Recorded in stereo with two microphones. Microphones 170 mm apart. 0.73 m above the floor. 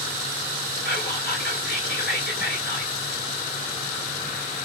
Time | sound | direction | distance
0.8 | whispering | 75° left (ahead or behind) | 1.7 m